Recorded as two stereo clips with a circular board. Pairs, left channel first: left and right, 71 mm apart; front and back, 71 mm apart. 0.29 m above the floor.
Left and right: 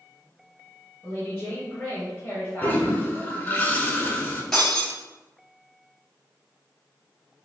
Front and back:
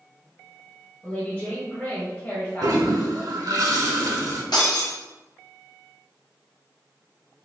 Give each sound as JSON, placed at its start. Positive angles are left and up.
{"t": 1.0, "sound": "a woman speaking", "azimuth_deg": 45, "distance_m": 1.2}
{"t": 2.6, "sound": "a toilet flushing", "azimuth_deg": 150, "distance_m": 0.6}
{"t": 4.5, "sound": "breaking glass", "azimuth_deg": 5, "distance_m": 1.7}